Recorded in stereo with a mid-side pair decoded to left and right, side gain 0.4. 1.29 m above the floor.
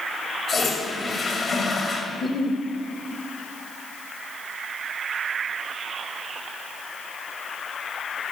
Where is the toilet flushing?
50° left, 2.5 m.